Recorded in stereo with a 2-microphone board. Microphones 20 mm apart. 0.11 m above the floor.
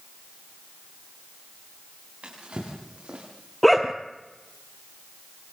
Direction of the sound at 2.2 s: 70° right (ahead or behind).